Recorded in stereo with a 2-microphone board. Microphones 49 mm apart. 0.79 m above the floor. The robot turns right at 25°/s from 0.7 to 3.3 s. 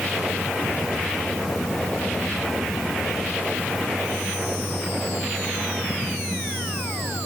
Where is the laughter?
I don't hear laughter.